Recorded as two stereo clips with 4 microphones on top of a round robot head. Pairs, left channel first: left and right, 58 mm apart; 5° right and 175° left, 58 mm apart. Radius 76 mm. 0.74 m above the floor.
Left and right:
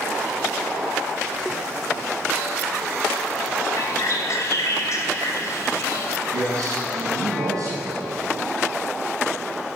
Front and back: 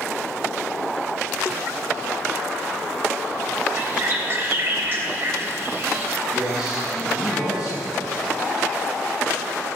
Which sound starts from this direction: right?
A man speaking, at 6.3 s.